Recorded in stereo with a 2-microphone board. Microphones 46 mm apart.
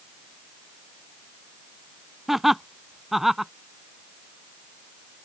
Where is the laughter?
5° right (ahead or behind).